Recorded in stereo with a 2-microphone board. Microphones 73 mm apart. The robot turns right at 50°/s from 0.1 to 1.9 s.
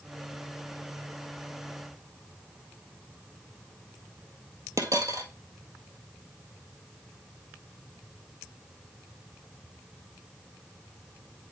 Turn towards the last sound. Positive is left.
turn(degrees=-50)  # may be behind; listen again after turning